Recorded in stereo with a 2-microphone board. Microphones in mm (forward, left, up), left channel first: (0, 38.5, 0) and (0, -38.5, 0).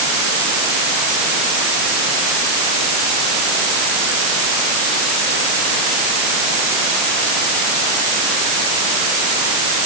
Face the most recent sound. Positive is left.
No sound to turn to.